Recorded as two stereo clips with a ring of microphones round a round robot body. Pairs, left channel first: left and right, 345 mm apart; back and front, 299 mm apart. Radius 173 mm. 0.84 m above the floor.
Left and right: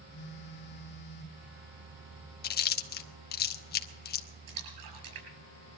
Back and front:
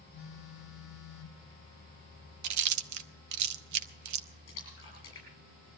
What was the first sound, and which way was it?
A phone buzzing, 150° left.